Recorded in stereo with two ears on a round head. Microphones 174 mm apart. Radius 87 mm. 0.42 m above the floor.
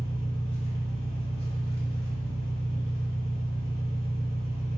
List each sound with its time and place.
0.0 s an engine running: 30° left (ahead or behind), 0.8 m